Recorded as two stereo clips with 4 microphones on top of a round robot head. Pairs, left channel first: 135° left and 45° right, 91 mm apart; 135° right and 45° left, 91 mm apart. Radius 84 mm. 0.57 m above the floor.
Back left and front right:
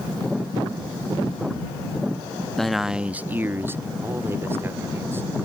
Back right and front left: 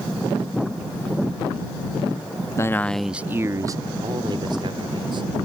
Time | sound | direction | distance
2.6 | a man speaking | 145° right | ?